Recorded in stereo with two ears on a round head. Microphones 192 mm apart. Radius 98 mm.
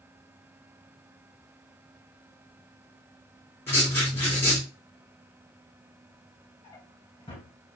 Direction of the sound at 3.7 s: 10° left (ahead or behind).